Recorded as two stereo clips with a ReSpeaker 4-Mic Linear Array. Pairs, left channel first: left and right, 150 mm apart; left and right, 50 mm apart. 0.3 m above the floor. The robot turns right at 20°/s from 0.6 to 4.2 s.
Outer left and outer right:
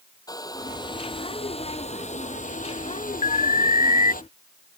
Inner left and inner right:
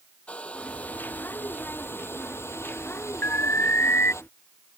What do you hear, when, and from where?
0.3 s a hair dryer: 25° left; by 4.2 s 100° left
3.2 s an alarm: 60° left (ahead or behind); by 4.1 s 65° left (ahead or behind)